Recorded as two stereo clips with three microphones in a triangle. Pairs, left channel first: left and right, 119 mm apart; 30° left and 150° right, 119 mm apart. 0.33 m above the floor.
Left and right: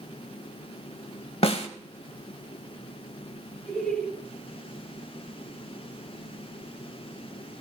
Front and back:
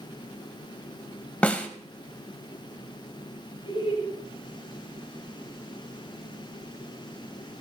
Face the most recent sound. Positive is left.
turn(degrees=5)